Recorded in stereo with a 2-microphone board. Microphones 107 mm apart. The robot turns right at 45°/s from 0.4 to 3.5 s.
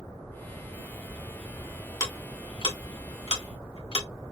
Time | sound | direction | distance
2.0 | ticking | 30° left (ahead or behind) | 1.5 m